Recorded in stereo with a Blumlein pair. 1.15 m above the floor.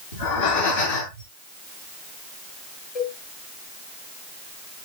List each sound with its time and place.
0.1 s breathing: 65° left, 10 m
3.0 s a cowbell: 35° left, 3.5 m